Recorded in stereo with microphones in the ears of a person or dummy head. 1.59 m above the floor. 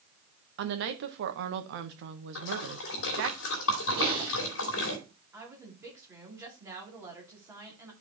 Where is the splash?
70° left (ahead or behind), 2.5 m.